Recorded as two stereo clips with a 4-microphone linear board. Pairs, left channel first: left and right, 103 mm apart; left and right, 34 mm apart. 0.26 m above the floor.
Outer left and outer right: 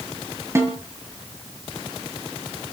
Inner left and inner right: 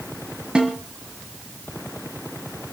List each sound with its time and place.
0.6 s a snare drum: 25° right (ahead or behind), 4 m